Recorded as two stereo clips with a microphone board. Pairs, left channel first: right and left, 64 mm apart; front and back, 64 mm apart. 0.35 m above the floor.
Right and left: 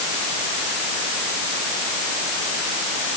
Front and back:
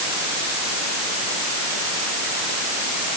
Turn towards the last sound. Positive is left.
No sound to turn to.